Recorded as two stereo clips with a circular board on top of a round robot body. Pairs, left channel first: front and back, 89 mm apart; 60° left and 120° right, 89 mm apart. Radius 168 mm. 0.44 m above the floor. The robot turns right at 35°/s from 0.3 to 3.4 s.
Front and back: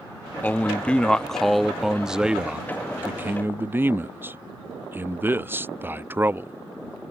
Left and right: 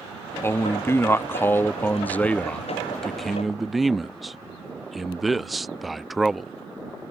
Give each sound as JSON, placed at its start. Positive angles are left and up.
{"t": 0.4, "sound": "a man speaking", "azimuth_deg": 45}